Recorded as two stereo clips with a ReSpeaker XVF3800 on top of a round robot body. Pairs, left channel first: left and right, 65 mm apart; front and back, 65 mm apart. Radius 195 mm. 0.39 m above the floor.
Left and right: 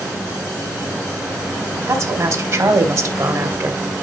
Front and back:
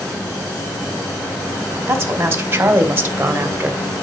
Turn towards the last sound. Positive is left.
turn(degrees=-120)